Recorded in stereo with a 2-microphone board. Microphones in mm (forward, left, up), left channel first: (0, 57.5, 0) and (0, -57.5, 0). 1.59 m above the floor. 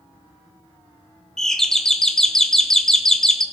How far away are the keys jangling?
No keys jangling in this recording.